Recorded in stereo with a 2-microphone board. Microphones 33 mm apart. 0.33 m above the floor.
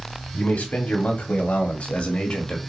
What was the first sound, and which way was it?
A man speaking, 55° left (ahead or behind).